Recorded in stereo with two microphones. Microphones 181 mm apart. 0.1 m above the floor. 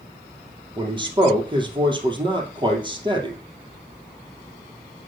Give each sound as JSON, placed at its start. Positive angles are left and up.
{"t": 0.8, "sound": "a man speaking", "side_deg": -25, "distance_m": 2.5}